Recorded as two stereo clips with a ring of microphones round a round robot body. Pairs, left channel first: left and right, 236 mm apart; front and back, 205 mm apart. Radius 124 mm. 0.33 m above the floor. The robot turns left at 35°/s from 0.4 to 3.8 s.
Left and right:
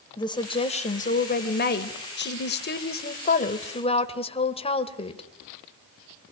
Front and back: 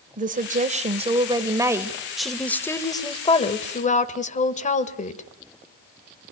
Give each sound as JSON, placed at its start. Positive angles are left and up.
{"t": 0.2, "sound": "a woman speaking", "azimuth_deg": 155, "distance_m": 1.7}